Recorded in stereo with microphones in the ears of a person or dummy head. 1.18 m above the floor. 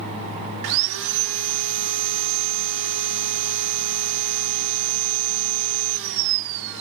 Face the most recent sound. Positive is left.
turn(degrees=-70)  # may be behind; listen again after turning